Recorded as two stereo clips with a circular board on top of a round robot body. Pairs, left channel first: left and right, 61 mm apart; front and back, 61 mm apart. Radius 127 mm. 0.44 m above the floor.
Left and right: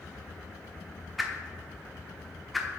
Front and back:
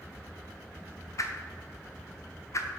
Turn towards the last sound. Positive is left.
turn(degrees=0)